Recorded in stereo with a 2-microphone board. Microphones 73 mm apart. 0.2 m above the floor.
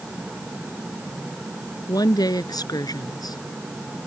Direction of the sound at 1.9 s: 65° left (ahead or behind).